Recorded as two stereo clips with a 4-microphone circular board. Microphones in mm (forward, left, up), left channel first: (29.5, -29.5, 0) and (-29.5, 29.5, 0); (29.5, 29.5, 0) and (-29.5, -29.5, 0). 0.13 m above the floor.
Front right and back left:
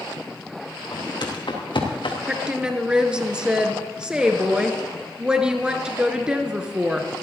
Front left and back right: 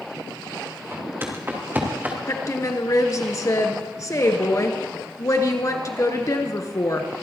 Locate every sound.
0.9 s footsteps: 75° right, 3.5 m; by 2.2 s 65° right, 2.5 m
2.3 s a woman speaking: 60° left, 1.5 m